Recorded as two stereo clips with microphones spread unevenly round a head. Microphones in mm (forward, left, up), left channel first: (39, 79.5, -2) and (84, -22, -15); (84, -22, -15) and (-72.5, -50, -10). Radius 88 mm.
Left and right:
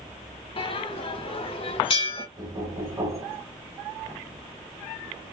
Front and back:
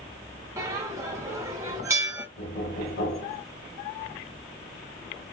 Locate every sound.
0.6 s a bell: 125° left, 1.4 m
2.4 s knocking: 5° right, 3 m